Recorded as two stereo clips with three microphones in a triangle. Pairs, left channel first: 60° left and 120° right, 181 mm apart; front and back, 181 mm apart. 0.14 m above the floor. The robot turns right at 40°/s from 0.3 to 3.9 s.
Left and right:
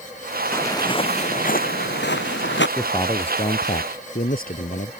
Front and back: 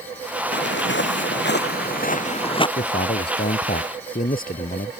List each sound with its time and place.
0.5 s footsteps: 20° right; by 2.7 s 65° left
2.8 s a man speaking: 15° right; by 4.9 s 30° left